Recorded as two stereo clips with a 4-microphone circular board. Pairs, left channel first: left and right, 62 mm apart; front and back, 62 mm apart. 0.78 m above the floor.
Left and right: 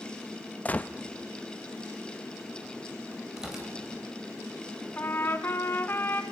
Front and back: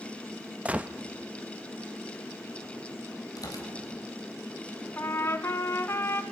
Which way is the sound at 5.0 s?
40° left.